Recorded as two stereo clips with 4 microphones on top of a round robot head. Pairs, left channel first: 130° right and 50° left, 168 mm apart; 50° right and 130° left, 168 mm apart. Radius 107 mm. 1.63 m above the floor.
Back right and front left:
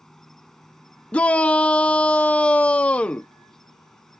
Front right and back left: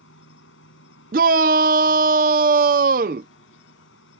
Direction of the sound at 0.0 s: 40° right.